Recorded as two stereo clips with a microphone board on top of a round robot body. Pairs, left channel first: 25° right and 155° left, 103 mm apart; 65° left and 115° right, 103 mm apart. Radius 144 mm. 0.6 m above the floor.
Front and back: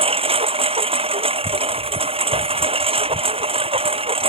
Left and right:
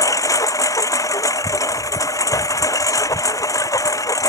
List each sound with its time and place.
0.0 s a lawn mower: 130° left